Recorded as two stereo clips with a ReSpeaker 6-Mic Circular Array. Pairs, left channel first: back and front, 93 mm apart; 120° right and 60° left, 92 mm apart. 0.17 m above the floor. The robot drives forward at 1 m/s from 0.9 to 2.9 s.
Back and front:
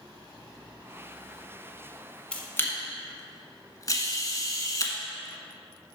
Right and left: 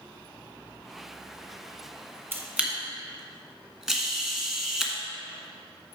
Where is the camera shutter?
110° left, 1.1 m; by 4.9 s 145° left, 1.3 m.